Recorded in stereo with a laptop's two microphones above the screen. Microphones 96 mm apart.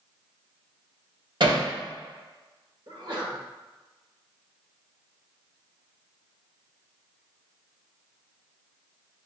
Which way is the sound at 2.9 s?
55° right (ahead or behind).